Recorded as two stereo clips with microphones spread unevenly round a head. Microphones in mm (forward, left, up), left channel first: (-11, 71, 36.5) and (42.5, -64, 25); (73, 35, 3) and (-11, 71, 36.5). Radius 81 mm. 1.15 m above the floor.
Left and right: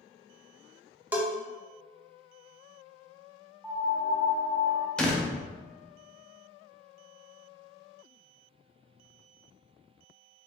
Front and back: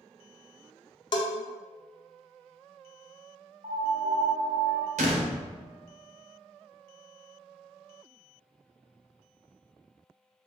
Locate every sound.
1.1 s a bell: 10° left, 0.7 m
3.6 s a piano: 155° right, 1.3 m
5.0 s a door slam: 165° right, 0.6 m